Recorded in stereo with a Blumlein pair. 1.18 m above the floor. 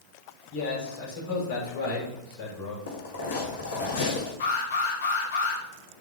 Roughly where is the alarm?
Ahead left.